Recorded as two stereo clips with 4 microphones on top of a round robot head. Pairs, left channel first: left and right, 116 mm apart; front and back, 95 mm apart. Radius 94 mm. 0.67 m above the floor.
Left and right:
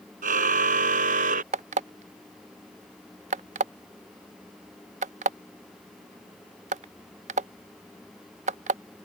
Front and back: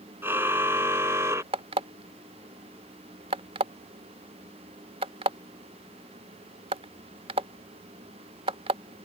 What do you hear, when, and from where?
0.2 s a car horn: 105° right
1.5 s an alarm clock: 130° right